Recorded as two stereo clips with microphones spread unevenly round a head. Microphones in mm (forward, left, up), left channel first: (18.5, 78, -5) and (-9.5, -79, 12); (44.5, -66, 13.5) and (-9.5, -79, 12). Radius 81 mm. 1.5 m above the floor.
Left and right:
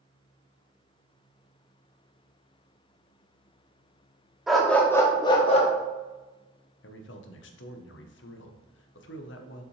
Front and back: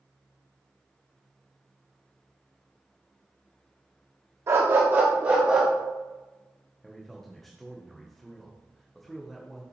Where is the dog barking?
Straight behind, 1.2 m; by 5.7 s 115° left, 1.1 m.